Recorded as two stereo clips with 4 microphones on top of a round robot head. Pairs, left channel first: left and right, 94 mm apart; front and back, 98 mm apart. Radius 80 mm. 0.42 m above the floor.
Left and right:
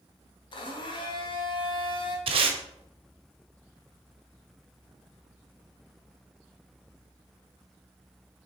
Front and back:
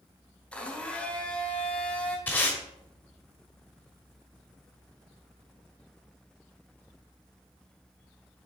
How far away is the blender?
About 1.4 m.